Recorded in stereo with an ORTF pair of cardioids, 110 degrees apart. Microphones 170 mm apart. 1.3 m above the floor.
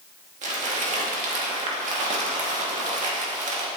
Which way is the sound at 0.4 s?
45° right.